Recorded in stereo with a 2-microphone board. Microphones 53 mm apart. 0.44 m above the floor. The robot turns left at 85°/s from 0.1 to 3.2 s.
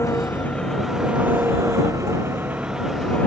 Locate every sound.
0.0 s an engine running: 60° left; by 3.3 s 155° left